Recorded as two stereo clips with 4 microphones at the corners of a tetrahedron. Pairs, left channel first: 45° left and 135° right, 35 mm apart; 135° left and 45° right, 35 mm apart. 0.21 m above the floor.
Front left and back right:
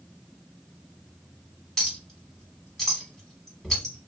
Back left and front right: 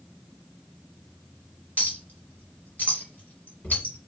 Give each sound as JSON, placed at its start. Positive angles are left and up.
{"t": 1.8, "sound": "a clink", "azimuth_deg": 120, "distance_m": 1.3}